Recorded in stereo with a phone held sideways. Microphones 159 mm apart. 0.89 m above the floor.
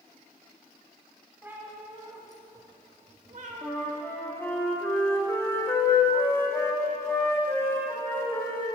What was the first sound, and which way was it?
A cat meowing, 10° right (ahead or behind).